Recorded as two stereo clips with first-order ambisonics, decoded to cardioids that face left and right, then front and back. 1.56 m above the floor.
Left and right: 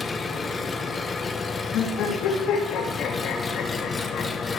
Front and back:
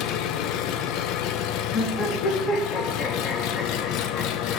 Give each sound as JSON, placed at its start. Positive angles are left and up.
{"t": 0.0, "sound": "an engine running", "azimuth_deg": 15, "distance_m": 0.8}
{"t": 1.7, "sound": "laughter", "azimuth_deg": 55, "distance_m": 2.5}